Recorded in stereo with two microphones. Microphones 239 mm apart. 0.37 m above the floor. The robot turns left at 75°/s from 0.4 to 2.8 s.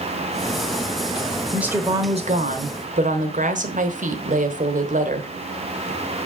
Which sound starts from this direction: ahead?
A woman speaking, at 1.5 s.